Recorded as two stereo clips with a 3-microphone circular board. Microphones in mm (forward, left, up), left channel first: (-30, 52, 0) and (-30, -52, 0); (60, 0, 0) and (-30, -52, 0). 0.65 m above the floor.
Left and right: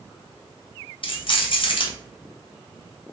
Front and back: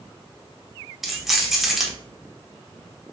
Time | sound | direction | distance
1.0 | keys jangling | 125° left | 1.0 m